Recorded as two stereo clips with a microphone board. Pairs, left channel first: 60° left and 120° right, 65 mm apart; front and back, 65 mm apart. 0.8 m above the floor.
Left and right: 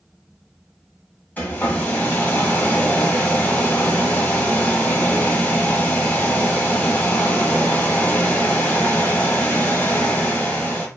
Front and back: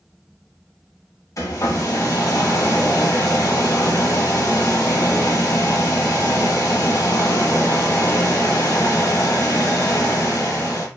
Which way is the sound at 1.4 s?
Straight ahead.